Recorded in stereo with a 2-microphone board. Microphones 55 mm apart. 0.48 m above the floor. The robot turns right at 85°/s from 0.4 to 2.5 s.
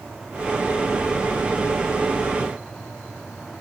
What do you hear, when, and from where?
Only background noise.